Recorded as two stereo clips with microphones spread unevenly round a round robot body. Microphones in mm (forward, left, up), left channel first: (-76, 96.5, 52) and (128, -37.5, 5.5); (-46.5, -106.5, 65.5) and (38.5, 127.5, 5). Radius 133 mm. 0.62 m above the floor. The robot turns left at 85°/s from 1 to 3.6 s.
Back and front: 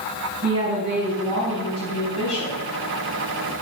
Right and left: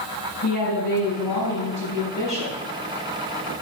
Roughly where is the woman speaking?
Right.